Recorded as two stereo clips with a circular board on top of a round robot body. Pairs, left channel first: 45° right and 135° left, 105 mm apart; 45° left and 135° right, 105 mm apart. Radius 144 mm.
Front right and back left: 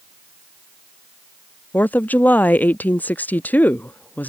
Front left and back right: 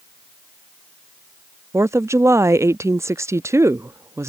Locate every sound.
1.7 s a woman speaking: 105° right